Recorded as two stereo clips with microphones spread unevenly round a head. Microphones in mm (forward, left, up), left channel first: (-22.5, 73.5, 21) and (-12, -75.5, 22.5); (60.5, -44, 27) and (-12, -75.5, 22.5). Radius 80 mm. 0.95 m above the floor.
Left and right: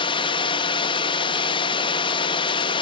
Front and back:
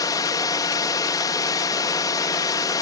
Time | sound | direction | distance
0.0 | a drone | 50° left | ?